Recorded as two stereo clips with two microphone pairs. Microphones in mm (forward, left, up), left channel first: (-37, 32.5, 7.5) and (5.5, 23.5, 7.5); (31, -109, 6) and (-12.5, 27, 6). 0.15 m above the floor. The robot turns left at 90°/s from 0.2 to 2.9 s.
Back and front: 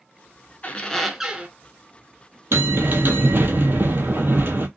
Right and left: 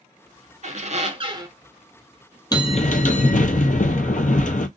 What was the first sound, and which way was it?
A squeak, 120° left.